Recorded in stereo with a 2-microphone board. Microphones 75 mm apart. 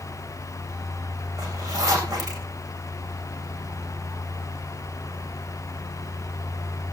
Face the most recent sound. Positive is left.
turn(degrees=-60)  # may be behind; listen again after turning